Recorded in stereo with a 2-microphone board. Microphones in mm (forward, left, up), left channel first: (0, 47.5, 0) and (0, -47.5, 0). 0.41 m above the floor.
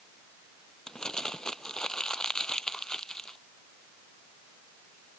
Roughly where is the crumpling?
Centre.